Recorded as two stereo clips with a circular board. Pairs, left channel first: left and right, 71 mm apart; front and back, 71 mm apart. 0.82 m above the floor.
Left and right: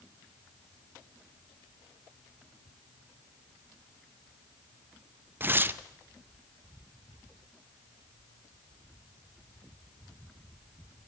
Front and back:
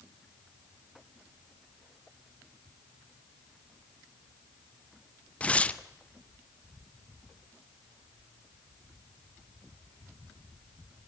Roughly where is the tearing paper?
Ahead right.